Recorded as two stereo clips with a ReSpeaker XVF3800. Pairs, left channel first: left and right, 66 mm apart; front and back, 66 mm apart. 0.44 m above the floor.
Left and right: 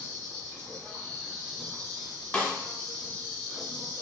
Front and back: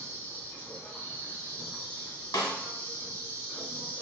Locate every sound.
0.0 s an insect: 20° left, 1.9 m
2.3 s a snare drum: 15° left, 0.7 m